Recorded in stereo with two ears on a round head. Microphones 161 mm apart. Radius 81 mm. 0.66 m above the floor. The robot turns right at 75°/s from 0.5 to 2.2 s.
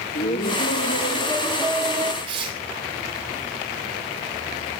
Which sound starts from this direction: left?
Laughter, at 0.1 s.